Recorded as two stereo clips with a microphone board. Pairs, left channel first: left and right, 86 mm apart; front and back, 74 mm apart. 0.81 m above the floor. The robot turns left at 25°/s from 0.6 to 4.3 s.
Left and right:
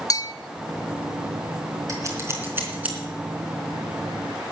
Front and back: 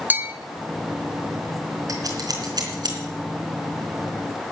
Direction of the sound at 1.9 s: 140° right.